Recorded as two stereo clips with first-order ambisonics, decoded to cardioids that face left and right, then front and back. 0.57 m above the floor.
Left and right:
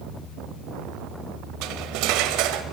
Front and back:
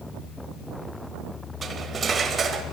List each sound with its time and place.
1.6 s cutlery clinking: 115° right, 1.3 m